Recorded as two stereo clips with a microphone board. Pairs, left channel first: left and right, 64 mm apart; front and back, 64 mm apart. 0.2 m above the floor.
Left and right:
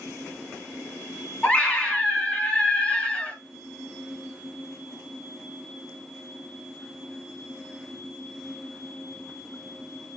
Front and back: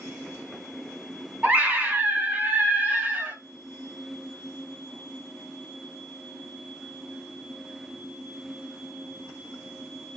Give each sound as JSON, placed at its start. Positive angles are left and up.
{"t": 1.4, "sound": "a scream", "azimuth_deg": 145, "distance_m": 1.5}